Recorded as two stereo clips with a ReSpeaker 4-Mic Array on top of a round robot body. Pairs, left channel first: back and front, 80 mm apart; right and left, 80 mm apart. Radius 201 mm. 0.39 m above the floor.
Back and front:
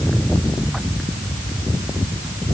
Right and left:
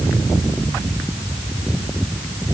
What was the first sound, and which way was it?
Only background noise.